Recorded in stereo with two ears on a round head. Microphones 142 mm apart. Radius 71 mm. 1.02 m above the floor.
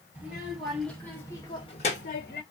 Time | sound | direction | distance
0.1 | a child speaking | 10° right (ahead or behind) | 1.7 m